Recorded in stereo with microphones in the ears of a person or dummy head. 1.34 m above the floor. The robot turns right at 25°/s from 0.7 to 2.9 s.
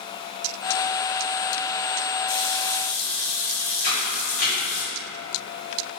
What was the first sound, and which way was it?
A running tap, 70° left (ahead or behind).